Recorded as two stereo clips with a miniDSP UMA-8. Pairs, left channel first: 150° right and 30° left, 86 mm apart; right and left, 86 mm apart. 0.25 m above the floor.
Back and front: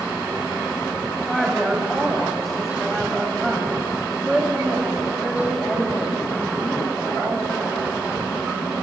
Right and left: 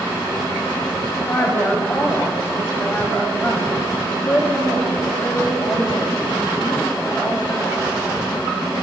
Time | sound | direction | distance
1.3 | a woman speaking | 60° right | 1.7 m